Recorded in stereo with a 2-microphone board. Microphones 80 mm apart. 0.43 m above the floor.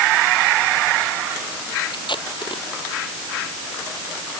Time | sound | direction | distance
1.9 | tape being pulled | 80° left | ?